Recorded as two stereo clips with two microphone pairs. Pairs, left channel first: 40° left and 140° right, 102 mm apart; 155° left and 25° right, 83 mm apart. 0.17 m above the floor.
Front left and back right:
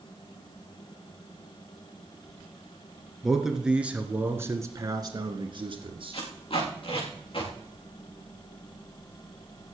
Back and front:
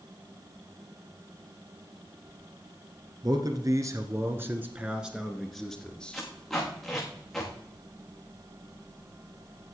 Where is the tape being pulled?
70° left, 5 m.